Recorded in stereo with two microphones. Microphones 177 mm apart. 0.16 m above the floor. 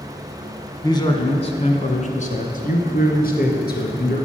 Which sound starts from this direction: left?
A man speaking, at 0.8 s.